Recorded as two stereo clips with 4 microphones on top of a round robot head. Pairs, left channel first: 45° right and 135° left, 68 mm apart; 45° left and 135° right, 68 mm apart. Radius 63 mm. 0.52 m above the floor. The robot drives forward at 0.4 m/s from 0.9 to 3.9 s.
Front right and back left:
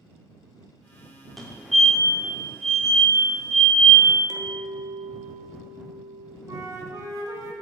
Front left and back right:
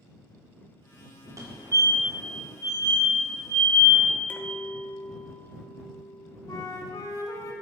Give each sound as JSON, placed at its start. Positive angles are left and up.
{"t": 1.4, "sound": "a fire alarm", "azimuth_deg": -135, "distance_m": 2.5}
{"t": 4.3, "sound": "a clink", "azimuth_deg": 110, "distance_m": 1.2}
{"t": 6.5, "sound": "a flute", "azimuth_deg": 90, "distance_m": 1.4}